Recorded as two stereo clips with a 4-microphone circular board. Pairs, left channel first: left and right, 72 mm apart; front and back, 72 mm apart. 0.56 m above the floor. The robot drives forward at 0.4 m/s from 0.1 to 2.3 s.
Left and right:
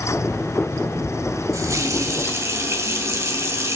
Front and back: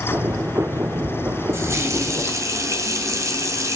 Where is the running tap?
130° right, 1.7 m; by 3.8 s 135° right, 2.0 m.